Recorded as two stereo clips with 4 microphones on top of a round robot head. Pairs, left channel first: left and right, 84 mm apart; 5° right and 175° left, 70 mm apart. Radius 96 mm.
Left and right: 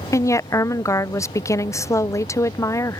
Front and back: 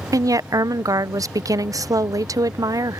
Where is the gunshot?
I don't hear a gunshot.